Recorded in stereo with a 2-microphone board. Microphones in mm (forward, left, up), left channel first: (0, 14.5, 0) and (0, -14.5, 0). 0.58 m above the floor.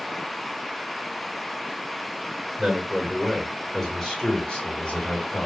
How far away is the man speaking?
About 1.9 m.